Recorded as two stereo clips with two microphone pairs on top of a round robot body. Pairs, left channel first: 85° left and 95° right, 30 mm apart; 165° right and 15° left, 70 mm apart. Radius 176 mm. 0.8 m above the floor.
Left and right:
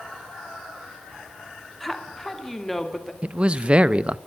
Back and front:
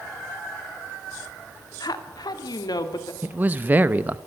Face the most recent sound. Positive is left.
turn(degrees=-45)